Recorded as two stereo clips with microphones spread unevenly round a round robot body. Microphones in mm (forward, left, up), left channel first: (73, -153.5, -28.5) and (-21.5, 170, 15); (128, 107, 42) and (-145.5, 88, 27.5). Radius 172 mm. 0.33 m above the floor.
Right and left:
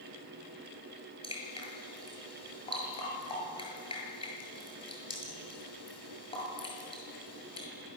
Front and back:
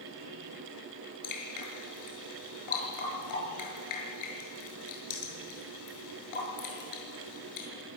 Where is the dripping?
Straight ahead, 7.5 m.